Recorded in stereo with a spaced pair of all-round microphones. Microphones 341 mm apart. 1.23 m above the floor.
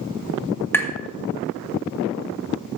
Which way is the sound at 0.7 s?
5° left (ahead or behind).